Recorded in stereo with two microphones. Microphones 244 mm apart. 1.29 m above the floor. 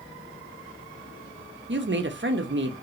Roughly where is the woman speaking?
Right.